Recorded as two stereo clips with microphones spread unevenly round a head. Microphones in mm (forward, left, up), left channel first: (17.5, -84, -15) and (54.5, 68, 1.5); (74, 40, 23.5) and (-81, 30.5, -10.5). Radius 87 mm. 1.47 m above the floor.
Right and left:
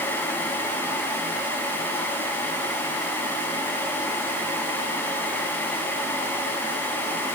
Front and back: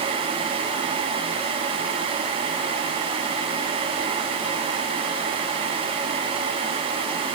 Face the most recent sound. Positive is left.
No sound to turn to.